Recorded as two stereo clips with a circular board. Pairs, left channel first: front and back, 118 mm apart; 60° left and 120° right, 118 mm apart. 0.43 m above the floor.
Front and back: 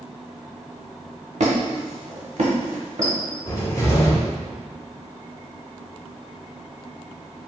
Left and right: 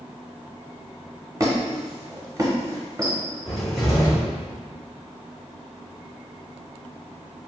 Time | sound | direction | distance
1.4 | a squeak | straight behind | 0.8 m
3.5 | a cupboard door | 30° right | 1.1 m